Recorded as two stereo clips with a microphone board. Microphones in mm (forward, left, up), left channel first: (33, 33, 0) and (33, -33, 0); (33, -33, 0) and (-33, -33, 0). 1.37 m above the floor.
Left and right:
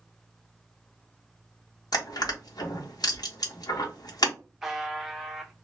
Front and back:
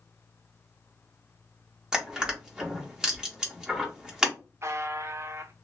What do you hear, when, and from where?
1.9 s crushing: 100° left, 1.1 m
4.6 s a buzzer: 170° right, 0.6 m